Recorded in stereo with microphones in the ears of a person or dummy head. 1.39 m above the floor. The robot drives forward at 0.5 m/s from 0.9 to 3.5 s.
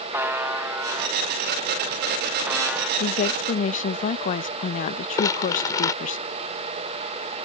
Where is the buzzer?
10° right (ahead or behind); by 2.9 s 5° right (ahead or behind).